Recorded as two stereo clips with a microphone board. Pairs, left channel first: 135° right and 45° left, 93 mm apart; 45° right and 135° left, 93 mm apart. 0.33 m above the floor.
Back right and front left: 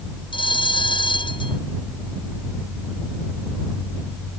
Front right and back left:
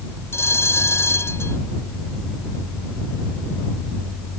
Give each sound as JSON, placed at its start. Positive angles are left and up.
{"t": 0.3, "sound": "a bell", "azimuth_deg": -105}